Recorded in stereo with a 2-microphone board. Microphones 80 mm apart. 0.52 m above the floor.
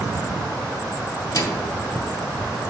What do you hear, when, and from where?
1.3 s a microwave: 45° left (ahead or behind), 0.7 m